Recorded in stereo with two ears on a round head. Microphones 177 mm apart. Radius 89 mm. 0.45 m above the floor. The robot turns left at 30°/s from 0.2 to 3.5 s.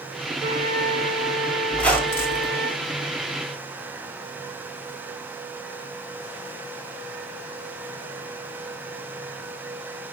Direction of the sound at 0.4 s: 45° right.